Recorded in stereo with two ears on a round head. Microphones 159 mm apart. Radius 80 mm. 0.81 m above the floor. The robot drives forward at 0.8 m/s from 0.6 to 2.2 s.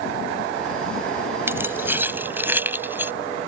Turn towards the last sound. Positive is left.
turn(degrees=-10)  # may be behind; listen again after turning